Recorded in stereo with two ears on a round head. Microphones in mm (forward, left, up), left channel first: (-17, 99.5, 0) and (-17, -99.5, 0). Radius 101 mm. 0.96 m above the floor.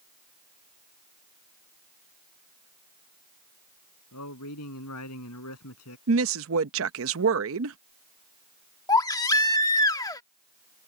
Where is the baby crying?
15° left (ahead or behind).